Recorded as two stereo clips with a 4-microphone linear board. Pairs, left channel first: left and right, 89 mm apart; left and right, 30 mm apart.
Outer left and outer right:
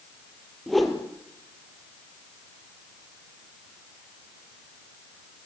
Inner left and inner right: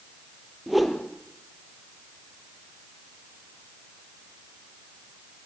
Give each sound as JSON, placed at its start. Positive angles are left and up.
{"t": 0.7, "sound": "a whoosh", "side_deg": 0, "distance_m": 3.0}